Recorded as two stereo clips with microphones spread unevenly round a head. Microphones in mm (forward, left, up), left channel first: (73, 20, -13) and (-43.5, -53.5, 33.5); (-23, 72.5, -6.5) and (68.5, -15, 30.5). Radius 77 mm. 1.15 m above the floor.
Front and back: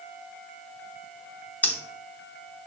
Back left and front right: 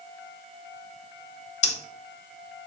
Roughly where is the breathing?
Left.